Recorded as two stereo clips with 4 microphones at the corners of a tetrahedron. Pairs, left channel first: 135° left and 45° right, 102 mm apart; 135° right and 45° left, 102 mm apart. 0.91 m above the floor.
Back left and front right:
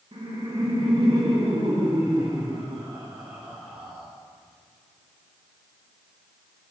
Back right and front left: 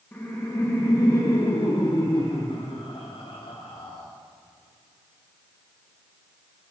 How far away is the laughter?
About 1.6 m.